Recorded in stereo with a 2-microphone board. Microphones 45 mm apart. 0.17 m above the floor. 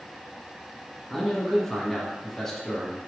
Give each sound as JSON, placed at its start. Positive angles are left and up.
{"t": 1.1, "sound": "a man speaking", "side_deg": 10, "distance_m": 1.4}